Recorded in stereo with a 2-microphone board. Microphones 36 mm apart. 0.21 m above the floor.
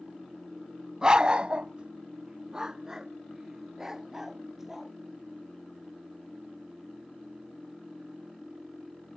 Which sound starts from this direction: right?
A dog barking, at 1.0 s.